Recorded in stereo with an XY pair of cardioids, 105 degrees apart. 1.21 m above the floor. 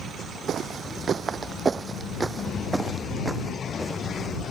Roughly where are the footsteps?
Ahead right.